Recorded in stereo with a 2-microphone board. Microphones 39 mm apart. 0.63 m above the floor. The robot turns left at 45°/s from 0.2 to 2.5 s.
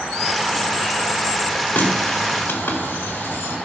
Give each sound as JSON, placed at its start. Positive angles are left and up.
{"t": 1.8, "sound": "a running tap", "side_deg": 50, "distance_m": 1.8}